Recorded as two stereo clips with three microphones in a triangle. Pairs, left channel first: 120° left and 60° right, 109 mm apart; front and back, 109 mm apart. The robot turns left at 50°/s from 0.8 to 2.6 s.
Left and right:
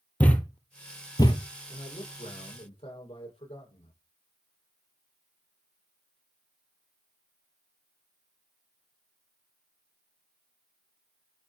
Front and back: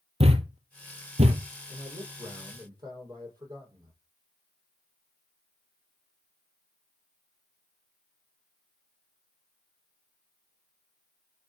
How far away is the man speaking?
About 8 m.